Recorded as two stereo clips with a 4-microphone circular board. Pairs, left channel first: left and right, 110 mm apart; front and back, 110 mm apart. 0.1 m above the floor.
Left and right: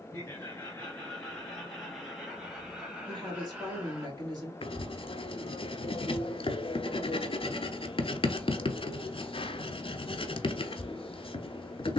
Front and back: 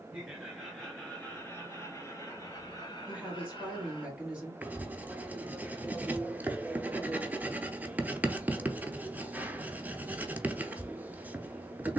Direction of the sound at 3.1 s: 110° right.